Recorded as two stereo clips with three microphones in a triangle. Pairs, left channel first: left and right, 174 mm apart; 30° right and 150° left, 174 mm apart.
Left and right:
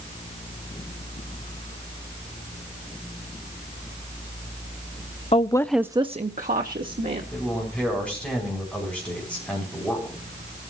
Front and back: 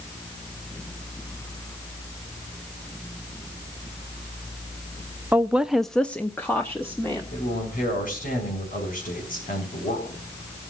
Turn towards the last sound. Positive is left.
turn(degrees=5)